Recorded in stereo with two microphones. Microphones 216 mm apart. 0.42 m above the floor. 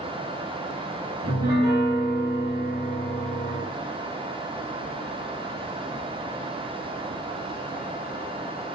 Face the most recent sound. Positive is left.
turn(degrees=-20)  # may be behind; listen again after turning